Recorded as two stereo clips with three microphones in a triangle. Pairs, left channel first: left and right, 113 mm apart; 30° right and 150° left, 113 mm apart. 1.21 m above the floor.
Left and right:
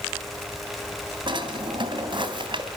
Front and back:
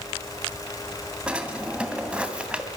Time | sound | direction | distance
1.3 | a drawer | 130° right | 2.5 m